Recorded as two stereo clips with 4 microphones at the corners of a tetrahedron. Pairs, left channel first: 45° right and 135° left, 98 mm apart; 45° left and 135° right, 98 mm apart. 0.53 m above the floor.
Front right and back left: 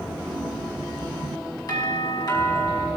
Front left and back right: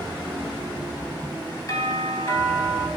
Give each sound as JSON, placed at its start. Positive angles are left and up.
{"t": 1.7, "sound": "a doorbell", "azimuth_deg": -5, "distance_m": 5.5}